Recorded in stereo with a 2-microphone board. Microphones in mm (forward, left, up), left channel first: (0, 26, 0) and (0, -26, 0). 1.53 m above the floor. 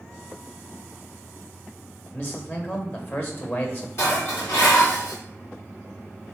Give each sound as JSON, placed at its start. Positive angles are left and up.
{"t": 2.1, "sound": "a man speaking", "side_deg": 40, "distance_m": 1.3}
{"t": 4.0, "sound": "dishes clattering", "side_deg": 55, "distance_m": 2.5}